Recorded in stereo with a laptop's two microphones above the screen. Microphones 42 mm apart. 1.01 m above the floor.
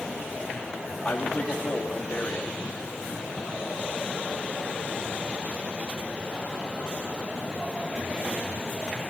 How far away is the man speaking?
About 1.8 m.